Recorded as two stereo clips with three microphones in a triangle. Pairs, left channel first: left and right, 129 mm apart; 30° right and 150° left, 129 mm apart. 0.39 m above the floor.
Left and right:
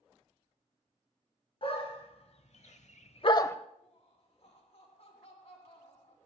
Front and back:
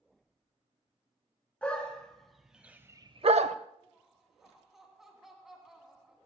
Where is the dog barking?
50° left, 2 m; by 3.6 s 160° left, 0.8 m.